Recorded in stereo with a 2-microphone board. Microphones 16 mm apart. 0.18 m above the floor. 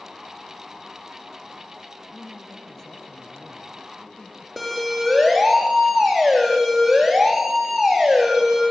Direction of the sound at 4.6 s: 5° right (ahead or behind).